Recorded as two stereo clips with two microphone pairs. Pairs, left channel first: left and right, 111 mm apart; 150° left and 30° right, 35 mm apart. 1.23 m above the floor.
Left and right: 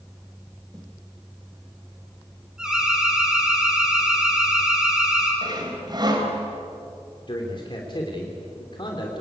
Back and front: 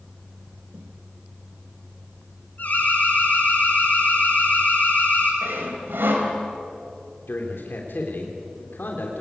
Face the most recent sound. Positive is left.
turn(degrees=135)